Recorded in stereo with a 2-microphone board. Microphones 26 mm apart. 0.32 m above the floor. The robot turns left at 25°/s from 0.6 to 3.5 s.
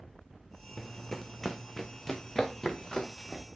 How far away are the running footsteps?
About 0.7 m.